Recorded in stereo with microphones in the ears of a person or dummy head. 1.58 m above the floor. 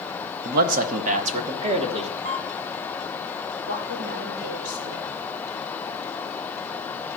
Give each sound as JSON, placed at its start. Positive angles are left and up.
{"t": 0.5, "sound": "a man speaking", "side_deg": -55, "distance_m": 0.9}
{"t": 2.2, "sound": "a camera shutter", "side_deg": -50, "distance_m": 0.9}
{"t": 3.7, "sound": "a woman speaking", "side_deg": -60, "distance_m": 2.5}